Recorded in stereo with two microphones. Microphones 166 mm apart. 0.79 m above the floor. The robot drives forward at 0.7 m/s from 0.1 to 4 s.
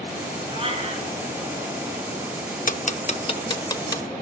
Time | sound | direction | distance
0.5 | a cat meowing | 35° right (ahead or behind) | 4.5 m
2.7 | ticking | 55° left (ahead or behind) | 0.6 m